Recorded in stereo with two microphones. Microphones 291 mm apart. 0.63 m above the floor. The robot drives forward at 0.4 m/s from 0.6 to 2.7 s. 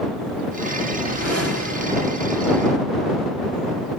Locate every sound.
0.9 s a whoosh: 55° right (ahead or behind), 1.6 m; by 2.3 s 45° right (ahead or behind), 1.9 m